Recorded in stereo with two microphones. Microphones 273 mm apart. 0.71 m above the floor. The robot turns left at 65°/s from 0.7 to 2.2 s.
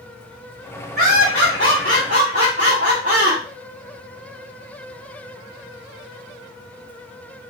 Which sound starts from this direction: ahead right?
Laughter, at 1.0 s.